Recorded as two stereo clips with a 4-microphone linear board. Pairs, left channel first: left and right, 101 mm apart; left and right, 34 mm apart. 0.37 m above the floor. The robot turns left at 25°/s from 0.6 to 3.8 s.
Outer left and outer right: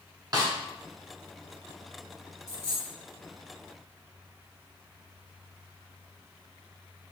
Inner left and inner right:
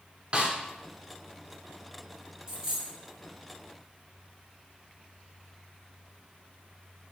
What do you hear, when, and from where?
0.3 s a snare drum: 40° right (ahead or behind), 0.7 m
2.5 s a dropped coin: 15° right (ahead or behind), 1.8 m; by 2.9 s 30° right (ahead or behind), 1.8 m